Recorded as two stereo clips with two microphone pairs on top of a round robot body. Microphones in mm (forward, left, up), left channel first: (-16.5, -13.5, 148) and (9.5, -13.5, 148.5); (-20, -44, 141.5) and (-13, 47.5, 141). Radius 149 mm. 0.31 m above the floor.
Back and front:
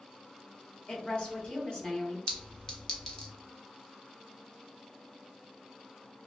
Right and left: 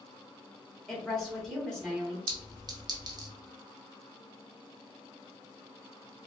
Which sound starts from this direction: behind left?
A clink, at 2.3 s.